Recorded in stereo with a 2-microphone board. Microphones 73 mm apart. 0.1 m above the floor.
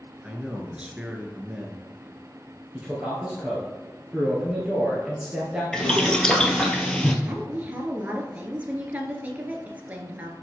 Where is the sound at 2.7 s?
15° right (ahead or behind), 2 m.